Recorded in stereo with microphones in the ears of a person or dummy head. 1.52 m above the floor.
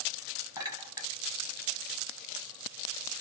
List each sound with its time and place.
0.6 s a clink: 15° right (ahead or behind), 1.0 m